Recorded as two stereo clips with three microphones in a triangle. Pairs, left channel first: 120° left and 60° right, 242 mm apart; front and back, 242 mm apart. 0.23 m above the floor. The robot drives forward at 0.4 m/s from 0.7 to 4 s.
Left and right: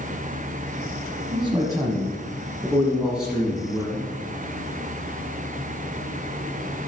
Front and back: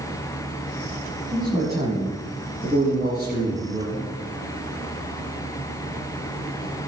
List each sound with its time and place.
1.3 s a man speaking: 115° right, 1.3 m; by 4.1 s 150° right, 1.9 m